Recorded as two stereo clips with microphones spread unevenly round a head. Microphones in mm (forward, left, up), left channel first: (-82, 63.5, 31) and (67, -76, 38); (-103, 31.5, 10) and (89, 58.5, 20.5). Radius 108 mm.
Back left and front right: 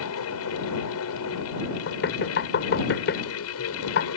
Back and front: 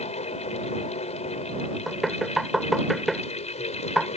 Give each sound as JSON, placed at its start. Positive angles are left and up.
{"t": 0.0, "sound": "a fan", "azimuth_deg": 130}
{"t": 1.9, "sound": "knocking", "azimuth_deg": 95}